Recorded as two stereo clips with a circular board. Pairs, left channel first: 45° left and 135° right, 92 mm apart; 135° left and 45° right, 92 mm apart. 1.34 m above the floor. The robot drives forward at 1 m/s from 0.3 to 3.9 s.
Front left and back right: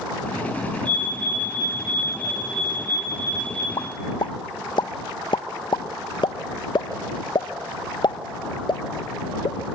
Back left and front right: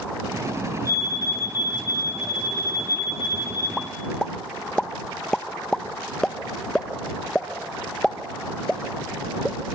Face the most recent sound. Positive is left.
turn(degrees=50)